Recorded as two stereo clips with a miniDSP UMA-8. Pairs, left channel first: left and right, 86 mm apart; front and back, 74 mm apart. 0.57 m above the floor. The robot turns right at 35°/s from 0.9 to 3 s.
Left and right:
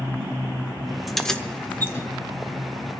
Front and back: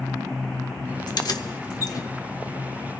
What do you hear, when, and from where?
1.1 s keys jangling: straight ahead, 0.8 m; by 2.1 s 35° left, 0.8 m